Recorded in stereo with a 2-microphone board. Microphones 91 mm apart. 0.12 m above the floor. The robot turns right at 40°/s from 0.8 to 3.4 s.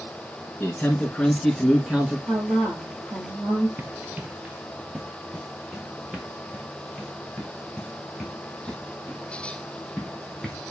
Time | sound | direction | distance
0.6 | a man speaking | 20° left (ahead or behind) | 1.2 m
2.3 | a woman speaking | 70° right | 2.5 m
3.8 | running footsteps | 25° right (ahead or behind) | 0.6 m